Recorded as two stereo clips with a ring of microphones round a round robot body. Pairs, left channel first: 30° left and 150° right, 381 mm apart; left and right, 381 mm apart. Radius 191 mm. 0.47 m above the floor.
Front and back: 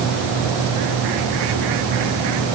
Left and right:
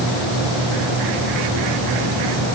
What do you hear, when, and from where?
Only background noise.